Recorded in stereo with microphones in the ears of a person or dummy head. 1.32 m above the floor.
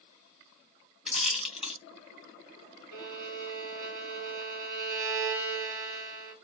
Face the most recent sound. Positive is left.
turn(degrees=-50)  # may be behind; listen again after turning